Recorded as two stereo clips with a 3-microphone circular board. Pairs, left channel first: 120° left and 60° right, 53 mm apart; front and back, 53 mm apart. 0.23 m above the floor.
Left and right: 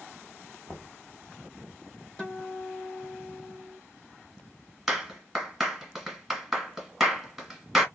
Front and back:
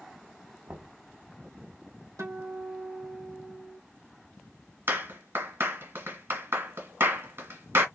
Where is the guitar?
165° right, 2.5 m.